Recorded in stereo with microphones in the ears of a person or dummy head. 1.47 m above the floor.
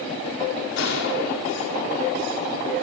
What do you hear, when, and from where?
0.8 s a gunshot: 65° left (ahead or behind), 4.5 m